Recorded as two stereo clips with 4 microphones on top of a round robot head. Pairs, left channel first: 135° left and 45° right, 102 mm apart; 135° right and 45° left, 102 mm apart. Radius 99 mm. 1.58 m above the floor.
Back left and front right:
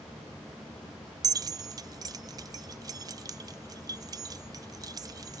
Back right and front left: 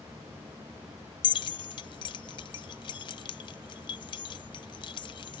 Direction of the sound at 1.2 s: 100° right.